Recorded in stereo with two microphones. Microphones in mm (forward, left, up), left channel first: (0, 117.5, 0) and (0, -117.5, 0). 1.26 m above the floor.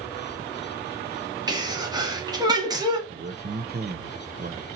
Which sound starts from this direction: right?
A man speaking, at 3.1 s.